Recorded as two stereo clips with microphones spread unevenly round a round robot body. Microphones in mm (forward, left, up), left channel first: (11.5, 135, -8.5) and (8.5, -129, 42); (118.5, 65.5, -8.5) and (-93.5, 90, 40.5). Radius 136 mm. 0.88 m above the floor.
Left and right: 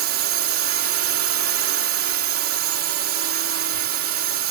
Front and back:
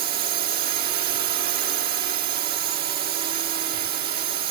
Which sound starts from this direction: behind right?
A drone, at 0.0 s.